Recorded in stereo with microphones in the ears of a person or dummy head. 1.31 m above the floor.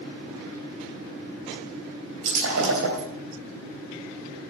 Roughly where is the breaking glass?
Right.